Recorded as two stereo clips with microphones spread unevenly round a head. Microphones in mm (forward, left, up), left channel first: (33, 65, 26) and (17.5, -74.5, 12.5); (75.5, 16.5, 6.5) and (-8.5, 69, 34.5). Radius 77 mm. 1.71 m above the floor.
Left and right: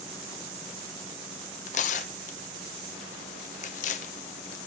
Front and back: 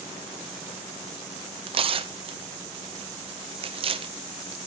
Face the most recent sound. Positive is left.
turn(degrees=130)